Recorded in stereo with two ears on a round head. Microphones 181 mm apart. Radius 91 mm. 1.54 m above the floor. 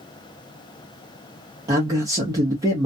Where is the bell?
I don't hear a bell.